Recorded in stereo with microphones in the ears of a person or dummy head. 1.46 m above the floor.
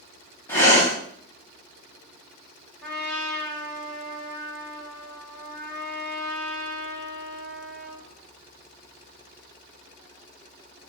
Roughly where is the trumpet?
Centre.